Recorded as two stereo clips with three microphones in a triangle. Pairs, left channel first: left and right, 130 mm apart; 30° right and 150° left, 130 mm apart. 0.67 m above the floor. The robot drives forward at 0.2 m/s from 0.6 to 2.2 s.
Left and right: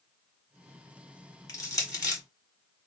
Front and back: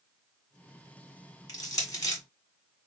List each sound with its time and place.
1.5 s crushing: 30° left, 1.6 m